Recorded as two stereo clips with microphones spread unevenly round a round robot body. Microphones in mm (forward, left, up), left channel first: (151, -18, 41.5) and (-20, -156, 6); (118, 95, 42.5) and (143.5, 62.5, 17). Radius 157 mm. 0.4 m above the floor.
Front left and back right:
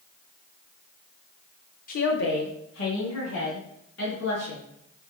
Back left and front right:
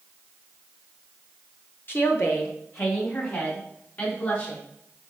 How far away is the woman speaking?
About 1.0 m.